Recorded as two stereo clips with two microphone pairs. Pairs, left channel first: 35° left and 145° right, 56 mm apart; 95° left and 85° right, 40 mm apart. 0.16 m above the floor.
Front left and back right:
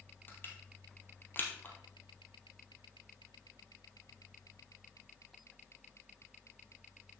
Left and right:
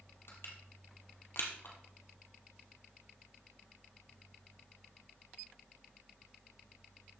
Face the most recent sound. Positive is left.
turn(degrees=85)